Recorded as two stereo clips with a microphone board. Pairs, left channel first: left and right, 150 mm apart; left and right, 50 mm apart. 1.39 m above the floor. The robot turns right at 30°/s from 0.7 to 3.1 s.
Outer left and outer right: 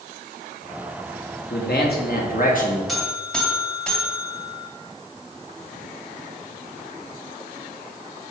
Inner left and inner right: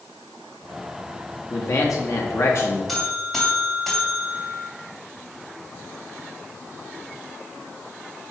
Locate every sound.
1.5 s a man speaking: 90° left, 1.7 m; by 2.8 s 125° left, 1.7 m
2.9 s a buzzer: centre (ahead or behind), 2.5 m; by 4.7 s 5° left (ahead or behind), 2.5 m